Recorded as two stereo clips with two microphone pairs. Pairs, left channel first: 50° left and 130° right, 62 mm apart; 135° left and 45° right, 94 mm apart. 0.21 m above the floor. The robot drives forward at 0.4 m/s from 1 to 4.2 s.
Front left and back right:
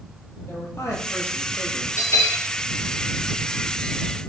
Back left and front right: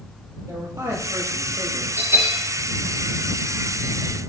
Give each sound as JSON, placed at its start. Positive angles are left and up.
{"t": 0.5, "sound": "a man speaking", "azimuth_deg": 15, "distance_m": 5.0}
{"t": 2.0, "sound": "a bell", "azimuth_deg": 20, "distance_m": 5.5}